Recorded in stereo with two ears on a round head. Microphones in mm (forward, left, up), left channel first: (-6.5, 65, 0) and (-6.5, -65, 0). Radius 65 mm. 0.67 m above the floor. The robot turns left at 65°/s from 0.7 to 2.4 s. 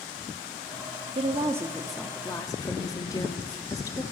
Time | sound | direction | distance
1.1 | a woman speaking | 130° right | 1.0 m